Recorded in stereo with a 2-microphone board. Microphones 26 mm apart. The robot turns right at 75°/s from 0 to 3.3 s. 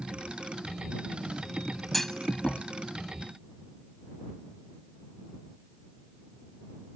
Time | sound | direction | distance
1.9 | a clunk | 5° left (ahead or behind) | ?